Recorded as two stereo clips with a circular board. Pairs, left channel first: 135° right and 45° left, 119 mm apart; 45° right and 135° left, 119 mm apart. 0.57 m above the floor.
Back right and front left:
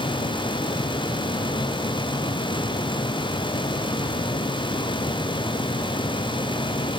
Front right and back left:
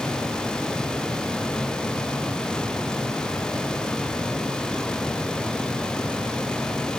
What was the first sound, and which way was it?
Only background noise.